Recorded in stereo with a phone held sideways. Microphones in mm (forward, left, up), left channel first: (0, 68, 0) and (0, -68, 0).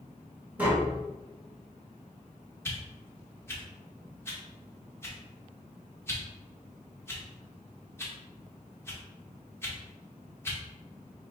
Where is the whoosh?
15° left (ahead or behind), 0.9 m.